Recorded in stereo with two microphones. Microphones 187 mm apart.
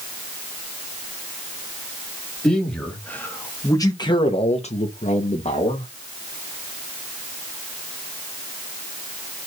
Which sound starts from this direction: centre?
A man speaking, at 2.4 s.